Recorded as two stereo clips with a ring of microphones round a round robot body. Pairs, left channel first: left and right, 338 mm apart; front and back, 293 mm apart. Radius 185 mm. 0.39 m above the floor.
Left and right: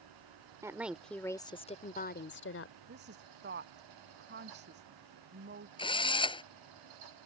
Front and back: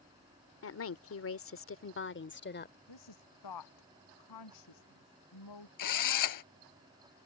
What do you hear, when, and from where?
0.6 s a woman speaking: 10° right; by 2.8 s 50° left
2.9 s a woman speaking: 30° right
5.8 s a drill: 15° left